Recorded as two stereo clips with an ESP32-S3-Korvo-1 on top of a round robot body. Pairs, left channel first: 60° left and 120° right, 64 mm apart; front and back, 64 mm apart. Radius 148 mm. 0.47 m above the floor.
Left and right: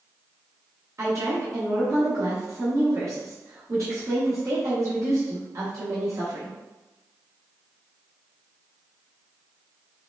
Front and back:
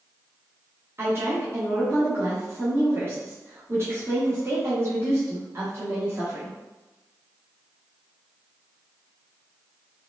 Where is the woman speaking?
140° right, 1.4 m.